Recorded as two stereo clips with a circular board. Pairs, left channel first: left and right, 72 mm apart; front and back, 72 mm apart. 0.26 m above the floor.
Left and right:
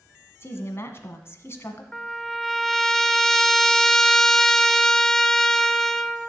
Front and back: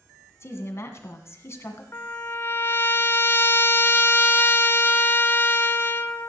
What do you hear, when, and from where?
0.4 s a woman speaking: 45° left, 1.9 m
1.9 s a trumpet: 10° left, 0.6 m